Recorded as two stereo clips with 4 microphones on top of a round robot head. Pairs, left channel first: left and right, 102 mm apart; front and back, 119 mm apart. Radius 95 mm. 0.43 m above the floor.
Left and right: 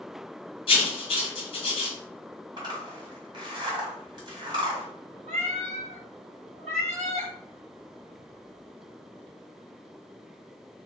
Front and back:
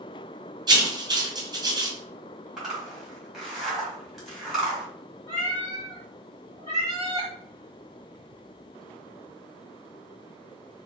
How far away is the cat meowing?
About 1.2 m.